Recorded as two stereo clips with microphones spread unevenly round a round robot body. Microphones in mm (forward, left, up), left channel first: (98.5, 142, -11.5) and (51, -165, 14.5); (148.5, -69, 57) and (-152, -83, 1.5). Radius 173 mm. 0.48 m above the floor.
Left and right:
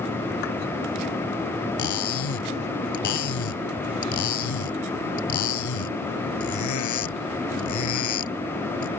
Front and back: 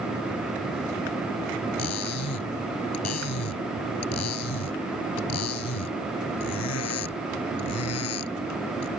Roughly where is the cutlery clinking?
Ahead left.